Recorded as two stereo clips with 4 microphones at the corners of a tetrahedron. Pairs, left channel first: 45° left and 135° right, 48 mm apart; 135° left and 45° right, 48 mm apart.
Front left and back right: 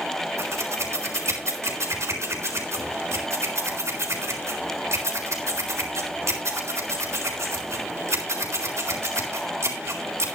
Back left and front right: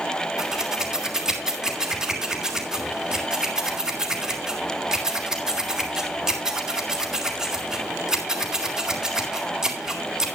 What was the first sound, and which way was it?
Scissors, 120° right.